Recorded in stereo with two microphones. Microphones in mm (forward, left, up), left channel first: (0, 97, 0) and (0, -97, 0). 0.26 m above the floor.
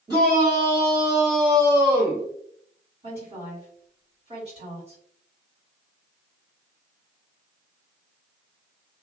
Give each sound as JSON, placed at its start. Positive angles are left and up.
{"t": 0.1, "sound": "a shout", "side_deg": -25, "distance_m": 1.4}
{"t": 3.0, "sound": "a woman speaking", "side_deg": -40, "distance_m": 1.9}